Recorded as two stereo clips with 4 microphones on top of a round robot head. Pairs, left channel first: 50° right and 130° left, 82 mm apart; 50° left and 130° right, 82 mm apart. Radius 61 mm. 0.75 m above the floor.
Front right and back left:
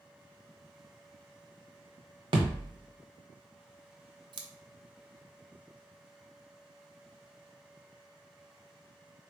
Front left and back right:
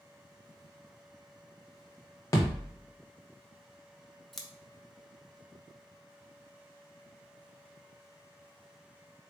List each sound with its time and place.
2.3 s a thud: 100° left, 0.8 m
4.3 s scissors: 135° left, 0.7 m